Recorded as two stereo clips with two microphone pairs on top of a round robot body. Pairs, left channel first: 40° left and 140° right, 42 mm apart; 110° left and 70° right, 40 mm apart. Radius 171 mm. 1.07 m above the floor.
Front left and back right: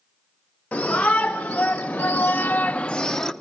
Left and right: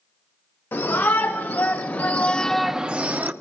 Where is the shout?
100° left, 2.5 m; by 3.3 s 35° right, 1.3 m.